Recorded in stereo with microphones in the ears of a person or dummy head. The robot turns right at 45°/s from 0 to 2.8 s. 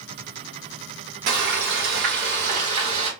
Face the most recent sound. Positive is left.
turn(degrees=-45)